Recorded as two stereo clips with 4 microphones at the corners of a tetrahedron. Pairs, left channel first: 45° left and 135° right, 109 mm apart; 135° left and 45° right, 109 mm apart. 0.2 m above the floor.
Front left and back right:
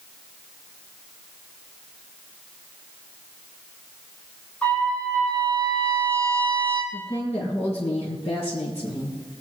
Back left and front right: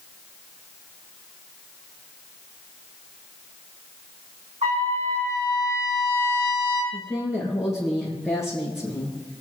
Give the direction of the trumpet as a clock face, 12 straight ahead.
1 o'clock.